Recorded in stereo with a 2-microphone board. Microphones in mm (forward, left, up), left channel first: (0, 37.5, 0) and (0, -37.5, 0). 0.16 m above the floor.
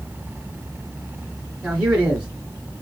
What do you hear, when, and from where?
1.6 s a man speaking: 10° right (ahead or behind), 2.5 m